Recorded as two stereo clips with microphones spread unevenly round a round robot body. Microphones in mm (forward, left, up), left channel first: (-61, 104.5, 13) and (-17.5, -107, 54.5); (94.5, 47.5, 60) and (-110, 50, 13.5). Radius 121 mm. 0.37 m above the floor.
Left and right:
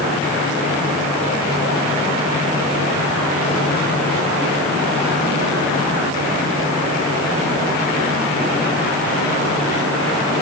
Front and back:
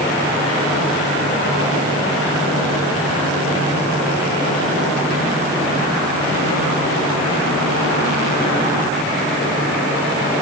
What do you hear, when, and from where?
Only background noise.